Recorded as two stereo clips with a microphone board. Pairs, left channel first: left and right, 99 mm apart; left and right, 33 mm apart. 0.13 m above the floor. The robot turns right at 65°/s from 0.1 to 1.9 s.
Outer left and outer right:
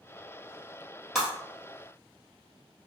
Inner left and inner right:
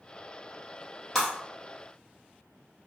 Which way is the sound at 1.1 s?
Centre (ahead or behind).